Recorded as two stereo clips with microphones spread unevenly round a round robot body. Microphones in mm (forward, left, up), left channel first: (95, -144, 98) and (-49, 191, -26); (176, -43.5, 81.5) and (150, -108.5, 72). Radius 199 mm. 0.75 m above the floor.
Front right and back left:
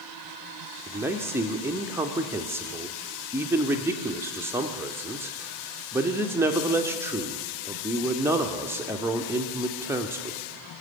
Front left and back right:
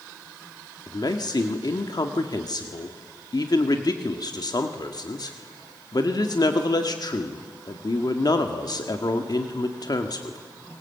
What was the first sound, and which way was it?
A man speaking, 40° left.